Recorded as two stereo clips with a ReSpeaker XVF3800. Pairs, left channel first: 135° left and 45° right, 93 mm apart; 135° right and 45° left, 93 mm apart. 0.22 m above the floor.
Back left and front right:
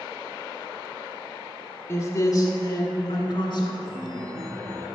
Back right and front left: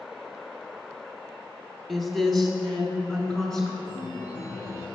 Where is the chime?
95° right, 1.1 m.